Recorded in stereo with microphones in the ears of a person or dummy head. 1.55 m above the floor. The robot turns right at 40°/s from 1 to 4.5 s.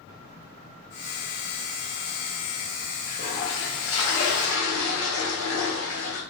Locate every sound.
3.1 s a toilet flushing: 50° left, 1.7 m; by 6.2 s 110° left, 1.7 m